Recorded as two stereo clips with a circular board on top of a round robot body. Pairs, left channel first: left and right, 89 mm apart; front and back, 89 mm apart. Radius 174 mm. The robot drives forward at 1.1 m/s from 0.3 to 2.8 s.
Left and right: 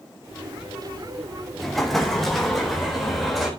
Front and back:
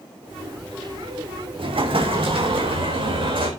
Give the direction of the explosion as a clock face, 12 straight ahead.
6 o'clock.